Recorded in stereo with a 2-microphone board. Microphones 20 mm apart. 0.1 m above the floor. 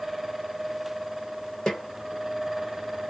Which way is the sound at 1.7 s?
45° left (ahead or behind).